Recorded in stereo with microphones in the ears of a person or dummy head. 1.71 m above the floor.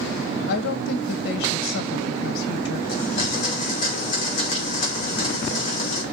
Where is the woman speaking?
65° left (ahead or behind), 1.3 m.